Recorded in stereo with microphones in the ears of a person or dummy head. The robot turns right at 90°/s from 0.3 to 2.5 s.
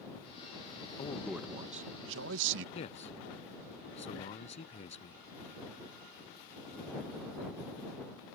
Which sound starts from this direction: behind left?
A man speaking, at 1.0 s.